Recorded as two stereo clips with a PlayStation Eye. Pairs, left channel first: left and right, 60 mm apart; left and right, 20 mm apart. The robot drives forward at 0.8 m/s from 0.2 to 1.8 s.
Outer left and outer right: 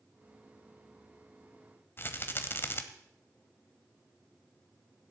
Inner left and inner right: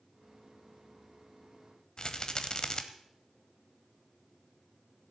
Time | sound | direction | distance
2.0 | a rattle | 40° left (ahead or behind) | 1.1 m